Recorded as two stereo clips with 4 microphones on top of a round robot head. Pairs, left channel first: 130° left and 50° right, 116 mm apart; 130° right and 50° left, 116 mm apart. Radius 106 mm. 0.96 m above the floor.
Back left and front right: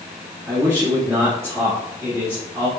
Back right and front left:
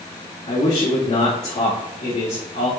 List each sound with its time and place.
0.5 s a man speaking: 115° right, 1.9 m